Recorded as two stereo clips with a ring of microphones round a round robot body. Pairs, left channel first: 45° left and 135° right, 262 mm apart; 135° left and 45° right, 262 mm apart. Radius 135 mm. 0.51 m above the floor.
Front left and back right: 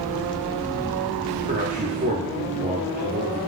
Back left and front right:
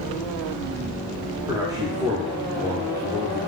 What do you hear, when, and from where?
1.5 s a man speaking: 110° right, 0.8 m